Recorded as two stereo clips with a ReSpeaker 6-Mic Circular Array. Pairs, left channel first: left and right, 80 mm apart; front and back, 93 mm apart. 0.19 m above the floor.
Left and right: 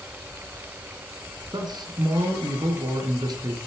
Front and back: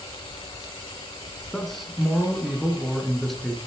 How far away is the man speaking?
About 2.5 m.